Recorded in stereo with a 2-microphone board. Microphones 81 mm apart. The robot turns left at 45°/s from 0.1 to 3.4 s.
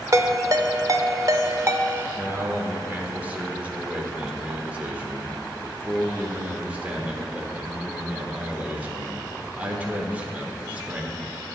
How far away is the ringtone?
About 0.6 m.